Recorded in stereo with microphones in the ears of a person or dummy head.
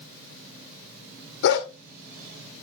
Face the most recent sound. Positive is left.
turn(degrees=65)  # may be behind; listen again after turning